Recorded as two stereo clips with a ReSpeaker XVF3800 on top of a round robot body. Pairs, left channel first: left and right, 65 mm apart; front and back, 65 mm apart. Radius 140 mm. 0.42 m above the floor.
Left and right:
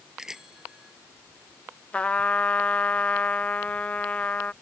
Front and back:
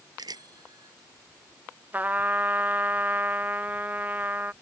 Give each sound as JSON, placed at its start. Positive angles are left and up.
{"t": 0.2, "sound": "a bicycle bell", "azimuth_deg": -175}
{"t": 1.9, "sound": "a trumpet", "azimuth_deg": 145}